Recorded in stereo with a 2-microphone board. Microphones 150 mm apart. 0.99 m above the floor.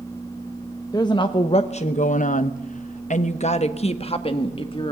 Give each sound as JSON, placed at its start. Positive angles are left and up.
{"t": 0.9, "sound": "a woman speaking", "side_deg": 25, "distance_m": 1.1}